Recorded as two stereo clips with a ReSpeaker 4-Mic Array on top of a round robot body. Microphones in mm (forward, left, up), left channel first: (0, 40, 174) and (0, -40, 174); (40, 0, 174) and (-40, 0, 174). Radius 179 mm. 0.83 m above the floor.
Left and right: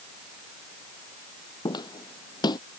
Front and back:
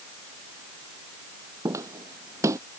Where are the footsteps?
125° left.